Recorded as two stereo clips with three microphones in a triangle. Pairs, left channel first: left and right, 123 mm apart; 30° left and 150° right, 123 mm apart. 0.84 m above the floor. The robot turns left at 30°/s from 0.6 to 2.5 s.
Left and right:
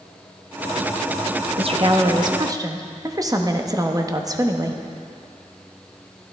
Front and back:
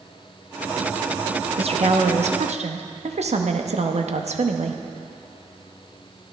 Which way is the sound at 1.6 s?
120° right.